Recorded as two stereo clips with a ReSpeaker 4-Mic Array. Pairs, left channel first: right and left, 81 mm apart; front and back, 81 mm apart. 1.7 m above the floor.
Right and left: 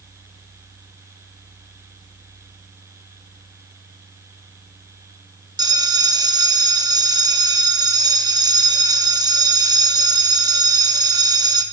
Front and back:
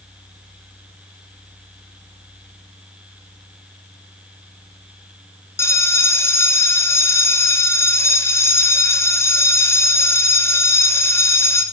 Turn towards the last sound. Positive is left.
turn(degrees=55)